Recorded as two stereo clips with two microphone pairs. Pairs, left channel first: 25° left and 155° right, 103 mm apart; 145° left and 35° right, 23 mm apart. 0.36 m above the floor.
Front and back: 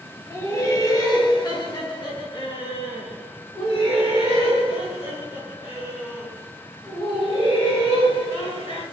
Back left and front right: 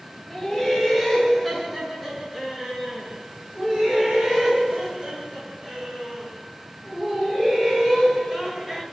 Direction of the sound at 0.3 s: 80° left.